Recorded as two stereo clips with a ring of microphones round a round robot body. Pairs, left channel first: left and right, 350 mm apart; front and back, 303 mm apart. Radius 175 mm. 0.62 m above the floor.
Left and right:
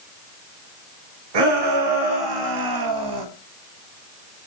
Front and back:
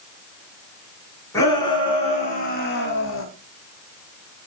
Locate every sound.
1.3 s a shout: 80° right, 5 m; by 3.2 s 55° right, 4.5 m